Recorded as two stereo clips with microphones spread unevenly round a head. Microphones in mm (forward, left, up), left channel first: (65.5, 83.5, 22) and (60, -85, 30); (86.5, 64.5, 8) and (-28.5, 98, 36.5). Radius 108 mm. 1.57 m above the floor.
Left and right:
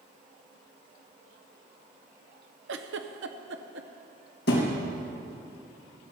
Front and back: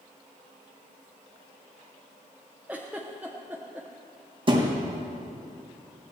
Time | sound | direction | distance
2.7 | a giggle | 115° right | 0.7 m
4.5 | a thud | 135° left | 3.5 m